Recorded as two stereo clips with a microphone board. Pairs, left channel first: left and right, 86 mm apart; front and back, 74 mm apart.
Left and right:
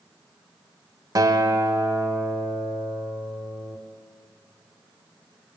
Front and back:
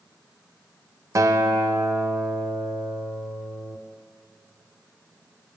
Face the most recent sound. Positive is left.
turn(degrees=-135)